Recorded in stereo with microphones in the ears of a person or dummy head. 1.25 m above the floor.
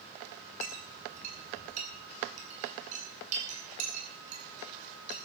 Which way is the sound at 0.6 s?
45° right (ahead or behind).